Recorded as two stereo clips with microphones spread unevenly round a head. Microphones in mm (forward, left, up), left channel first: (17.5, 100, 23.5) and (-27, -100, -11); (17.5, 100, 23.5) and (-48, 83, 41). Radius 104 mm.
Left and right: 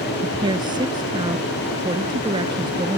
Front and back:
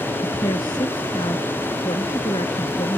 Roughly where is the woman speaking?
Ahead right.